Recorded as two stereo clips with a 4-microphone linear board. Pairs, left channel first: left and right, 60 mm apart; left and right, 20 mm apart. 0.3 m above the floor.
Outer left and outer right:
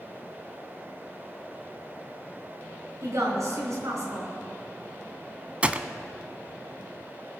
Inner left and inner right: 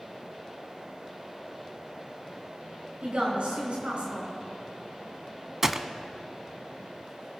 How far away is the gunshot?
About 0.5 m.